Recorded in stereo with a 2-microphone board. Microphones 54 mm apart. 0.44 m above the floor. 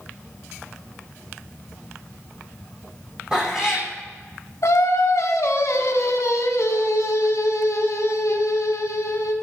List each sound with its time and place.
3.3 s a cat meowing: 15° right (ahead or behind), 3 m
4.6 s singing: 70° left (ahead or behind), 1.1 m